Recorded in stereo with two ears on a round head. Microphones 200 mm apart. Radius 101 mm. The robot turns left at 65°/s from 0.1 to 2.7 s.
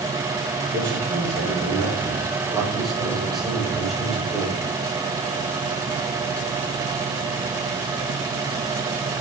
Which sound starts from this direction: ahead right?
A man speaking, at 0.7 s.